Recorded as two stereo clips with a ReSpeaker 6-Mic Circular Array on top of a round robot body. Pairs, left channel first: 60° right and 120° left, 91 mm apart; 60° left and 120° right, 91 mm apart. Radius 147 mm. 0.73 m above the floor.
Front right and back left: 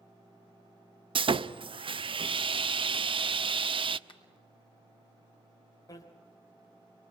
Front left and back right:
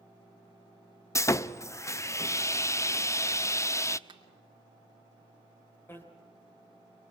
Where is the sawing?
115° left, 0.7 m.